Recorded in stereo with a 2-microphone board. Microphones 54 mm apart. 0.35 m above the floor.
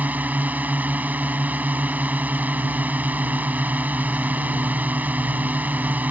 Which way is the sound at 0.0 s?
35° right (ahead or behind).